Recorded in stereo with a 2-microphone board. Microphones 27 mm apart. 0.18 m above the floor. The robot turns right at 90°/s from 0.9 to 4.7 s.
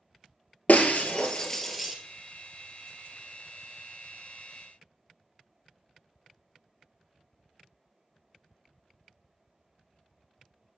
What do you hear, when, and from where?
0.7 s breaking glass: 70° left (ahead or behind), 1.1 m; by 1.9 s 15° right (ahead or behind), 1.1 m